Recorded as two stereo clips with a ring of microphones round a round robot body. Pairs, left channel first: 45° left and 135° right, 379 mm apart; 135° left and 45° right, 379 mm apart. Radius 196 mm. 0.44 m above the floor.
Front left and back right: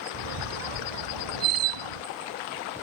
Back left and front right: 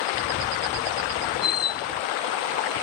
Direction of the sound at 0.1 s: 160° right.